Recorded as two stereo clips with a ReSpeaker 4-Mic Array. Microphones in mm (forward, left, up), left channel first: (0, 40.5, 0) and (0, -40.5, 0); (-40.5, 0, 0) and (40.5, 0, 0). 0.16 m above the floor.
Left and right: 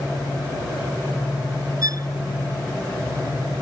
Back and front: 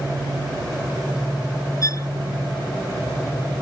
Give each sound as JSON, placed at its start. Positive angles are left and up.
{"t": 1.8, "sound": "a violin", "azimuth_deg": -130}